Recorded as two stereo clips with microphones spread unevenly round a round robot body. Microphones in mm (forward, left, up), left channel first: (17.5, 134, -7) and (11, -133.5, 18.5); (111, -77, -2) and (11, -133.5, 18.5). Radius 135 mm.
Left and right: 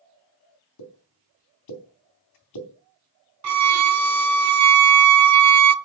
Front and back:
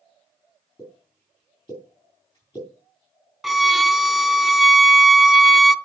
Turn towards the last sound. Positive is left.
turn(degrees=-60)